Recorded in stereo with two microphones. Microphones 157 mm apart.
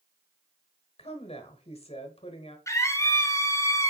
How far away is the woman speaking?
About 1.2 m.